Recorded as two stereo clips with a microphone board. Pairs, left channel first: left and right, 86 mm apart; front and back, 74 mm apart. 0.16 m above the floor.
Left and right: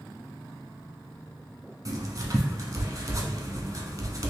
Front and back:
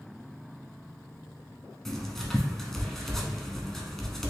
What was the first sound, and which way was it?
Writing, 85° right.